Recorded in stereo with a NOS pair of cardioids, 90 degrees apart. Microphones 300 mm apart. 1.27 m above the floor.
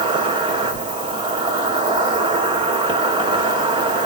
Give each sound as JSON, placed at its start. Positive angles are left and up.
{"t": 0.0, "sound": "an insect", "azimuth_deg": -15, "distance_m": 1.8}